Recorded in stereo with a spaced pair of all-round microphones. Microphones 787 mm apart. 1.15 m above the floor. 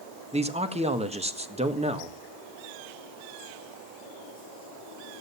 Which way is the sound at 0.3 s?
10° right (ahead or behind).